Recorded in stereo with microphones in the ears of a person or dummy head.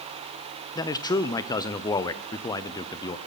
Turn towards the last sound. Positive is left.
turn(degrees=25)  # may be behind; listen again after turning